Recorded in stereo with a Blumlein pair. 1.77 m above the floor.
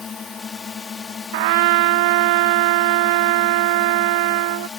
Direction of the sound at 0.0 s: 20° left.